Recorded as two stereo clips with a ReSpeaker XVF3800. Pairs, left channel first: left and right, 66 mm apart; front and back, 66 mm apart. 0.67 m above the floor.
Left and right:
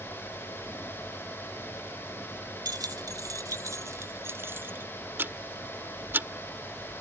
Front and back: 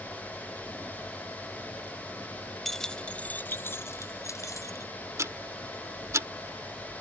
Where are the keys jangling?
90° right; by 4.9 s 30° right.